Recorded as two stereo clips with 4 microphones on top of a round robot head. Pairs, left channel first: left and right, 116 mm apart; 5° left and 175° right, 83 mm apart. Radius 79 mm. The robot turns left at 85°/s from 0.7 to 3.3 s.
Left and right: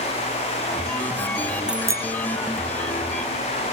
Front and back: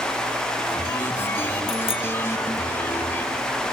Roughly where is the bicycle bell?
Ahead.